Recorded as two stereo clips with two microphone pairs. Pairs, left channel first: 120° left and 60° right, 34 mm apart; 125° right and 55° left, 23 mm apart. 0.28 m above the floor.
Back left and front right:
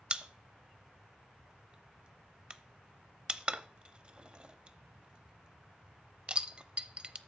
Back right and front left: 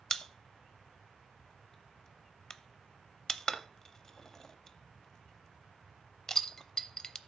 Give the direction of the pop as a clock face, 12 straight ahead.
3 o'clock.